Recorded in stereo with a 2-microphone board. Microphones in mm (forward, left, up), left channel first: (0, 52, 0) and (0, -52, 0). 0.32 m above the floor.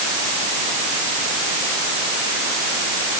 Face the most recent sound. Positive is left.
No sound to turn to.